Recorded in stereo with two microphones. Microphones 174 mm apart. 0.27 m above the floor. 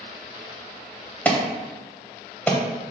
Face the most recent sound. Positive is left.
turn(degrees=10)  # may be behind; listen again after turning